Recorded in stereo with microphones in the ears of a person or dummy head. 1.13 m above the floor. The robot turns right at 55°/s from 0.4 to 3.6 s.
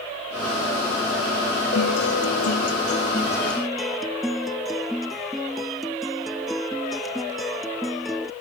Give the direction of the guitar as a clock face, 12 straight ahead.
9 o'clock.